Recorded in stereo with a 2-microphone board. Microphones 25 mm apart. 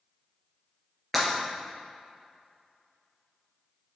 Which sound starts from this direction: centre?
Breaking glass, at 1.1 s.